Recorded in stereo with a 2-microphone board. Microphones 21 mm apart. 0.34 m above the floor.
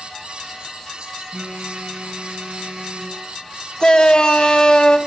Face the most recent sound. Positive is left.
turn(degrees=40)  # may be behind; listen again after turning